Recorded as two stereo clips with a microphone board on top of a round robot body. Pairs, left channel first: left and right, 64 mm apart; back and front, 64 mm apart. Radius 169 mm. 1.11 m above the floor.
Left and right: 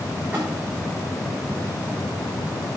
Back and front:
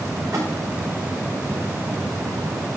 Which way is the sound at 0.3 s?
30° right.